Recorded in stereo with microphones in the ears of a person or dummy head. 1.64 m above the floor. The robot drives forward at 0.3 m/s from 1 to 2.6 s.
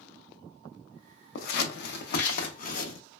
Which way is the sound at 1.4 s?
60° left (ahead or behind).